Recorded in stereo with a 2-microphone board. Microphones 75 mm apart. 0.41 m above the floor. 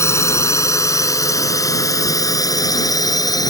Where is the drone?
40° left (ahead or behind); by 3.5 s 55° left (ahead or behind).